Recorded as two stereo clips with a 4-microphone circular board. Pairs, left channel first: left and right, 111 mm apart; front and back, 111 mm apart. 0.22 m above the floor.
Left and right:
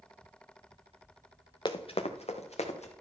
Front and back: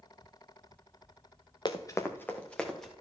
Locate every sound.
1.6 s running footsteps: 45° left, 1.2 m; by 2.9 s 85° left, 2.5 m